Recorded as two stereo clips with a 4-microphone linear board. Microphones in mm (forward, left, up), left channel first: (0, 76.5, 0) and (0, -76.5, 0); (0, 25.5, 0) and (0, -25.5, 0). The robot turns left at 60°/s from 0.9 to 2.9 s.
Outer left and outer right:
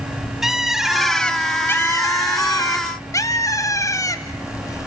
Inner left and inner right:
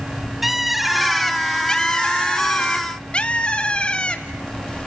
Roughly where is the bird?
Centre.